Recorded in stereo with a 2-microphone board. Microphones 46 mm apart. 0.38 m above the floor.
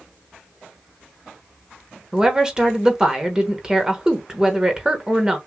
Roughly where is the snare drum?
I don't hear a snare drum.